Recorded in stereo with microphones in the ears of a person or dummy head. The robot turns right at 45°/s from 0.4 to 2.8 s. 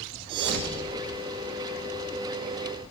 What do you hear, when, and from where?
0.3 s a thud: 80° right, 4 m; by 1.2 s 60° right (ahead or behind), 4 m